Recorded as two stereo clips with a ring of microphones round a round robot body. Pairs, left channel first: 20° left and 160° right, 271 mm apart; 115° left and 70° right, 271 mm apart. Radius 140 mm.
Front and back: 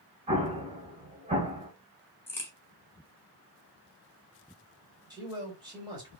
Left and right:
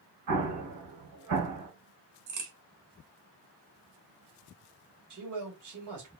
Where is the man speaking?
80° right, 3.5 m.